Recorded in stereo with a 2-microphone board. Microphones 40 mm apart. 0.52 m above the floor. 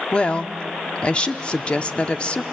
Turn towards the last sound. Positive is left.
turn(degrees=25)  # may be behind; listen again after turning